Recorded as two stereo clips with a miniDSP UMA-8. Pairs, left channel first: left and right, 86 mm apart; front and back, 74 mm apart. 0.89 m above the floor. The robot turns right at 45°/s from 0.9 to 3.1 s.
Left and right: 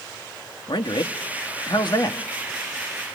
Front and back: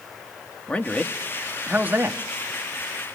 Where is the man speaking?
70° left, 1.2 m; by 2.2 s 130° left, 1.2 m.